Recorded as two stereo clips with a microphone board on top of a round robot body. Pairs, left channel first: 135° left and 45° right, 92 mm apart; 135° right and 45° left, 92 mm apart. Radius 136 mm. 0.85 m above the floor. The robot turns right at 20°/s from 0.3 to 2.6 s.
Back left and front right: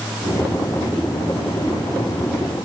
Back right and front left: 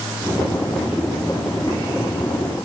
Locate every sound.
Only background noise.